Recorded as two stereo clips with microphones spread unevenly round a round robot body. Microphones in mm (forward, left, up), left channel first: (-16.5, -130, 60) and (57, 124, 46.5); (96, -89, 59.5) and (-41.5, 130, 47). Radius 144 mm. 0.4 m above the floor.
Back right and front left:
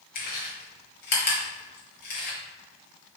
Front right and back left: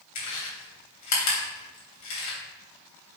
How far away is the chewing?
About 3 m.